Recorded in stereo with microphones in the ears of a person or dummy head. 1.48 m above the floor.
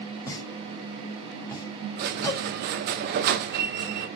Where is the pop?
15° left (ahead or behind), 2 m.